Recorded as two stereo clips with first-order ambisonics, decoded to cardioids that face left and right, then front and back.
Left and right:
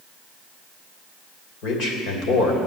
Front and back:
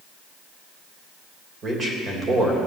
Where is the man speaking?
120° left, 3 m.